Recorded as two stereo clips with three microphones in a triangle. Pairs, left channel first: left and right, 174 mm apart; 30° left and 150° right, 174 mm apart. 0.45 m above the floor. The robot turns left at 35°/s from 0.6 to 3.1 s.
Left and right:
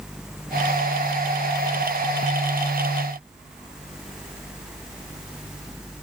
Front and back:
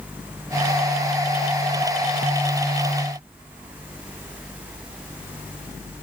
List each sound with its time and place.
Only background noise.